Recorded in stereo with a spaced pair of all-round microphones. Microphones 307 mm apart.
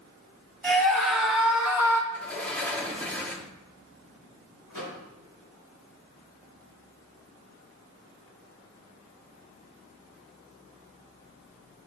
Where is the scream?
5° left (ahead or behind), 2.5 m.